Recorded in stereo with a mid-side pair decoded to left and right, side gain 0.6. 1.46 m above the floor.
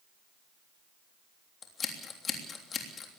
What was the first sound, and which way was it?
Scissors, 35° left.